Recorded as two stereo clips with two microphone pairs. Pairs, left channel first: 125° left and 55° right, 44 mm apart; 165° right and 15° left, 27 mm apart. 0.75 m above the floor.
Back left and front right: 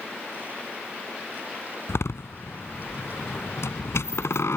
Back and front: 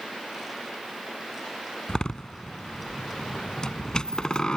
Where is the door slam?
135° left.